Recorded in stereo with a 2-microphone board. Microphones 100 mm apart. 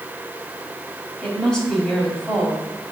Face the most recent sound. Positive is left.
turn(degrees=5)  # may be behind; listen again after turning